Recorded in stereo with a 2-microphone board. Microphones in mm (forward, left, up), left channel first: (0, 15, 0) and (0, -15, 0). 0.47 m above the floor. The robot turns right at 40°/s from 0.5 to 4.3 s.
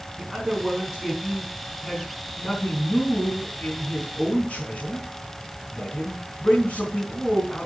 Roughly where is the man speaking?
Ahead right.